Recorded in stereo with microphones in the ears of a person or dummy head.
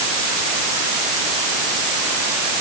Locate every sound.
Only background noise.